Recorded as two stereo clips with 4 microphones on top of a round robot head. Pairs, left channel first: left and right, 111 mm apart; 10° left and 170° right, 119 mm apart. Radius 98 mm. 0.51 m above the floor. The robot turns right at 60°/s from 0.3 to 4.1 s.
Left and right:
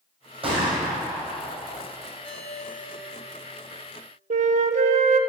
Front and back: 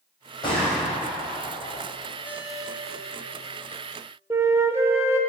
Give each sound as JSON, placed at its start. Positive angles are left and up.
{"t": 0.4, "sound": "a gunshot", "azimuth_deg": -55, "distance_m": 4.0}
{"t": 2.2, "sound": "a ringtone", "azimuth_deg": 55, "distance_m": 2.5}
{"t": 4.3, "sound": "a flute", "azimuth_deg": -100, "distance_m": 0.6}